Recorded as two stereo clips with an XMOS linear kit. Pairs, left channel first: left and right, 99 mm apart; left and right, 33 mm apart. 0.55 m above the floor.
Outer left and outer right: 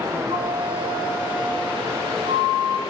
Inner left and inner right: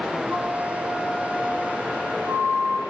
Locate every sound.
0.3 s a flute: 55° right (ahead or behind), 4.5 m